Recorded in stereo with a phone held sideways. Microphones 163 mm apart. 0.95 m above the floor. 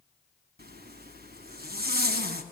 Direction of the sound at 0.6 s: 80° right.